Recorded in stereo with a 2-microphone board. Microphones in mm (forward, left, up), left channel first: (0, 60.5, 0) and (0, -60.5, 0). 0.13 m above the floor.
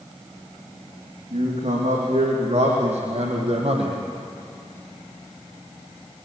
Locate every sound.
1.3 s a man speaking: 75° right (ahead or behind), 7.5 m; by 4.0 s 55° right (ahead or behind), 4 m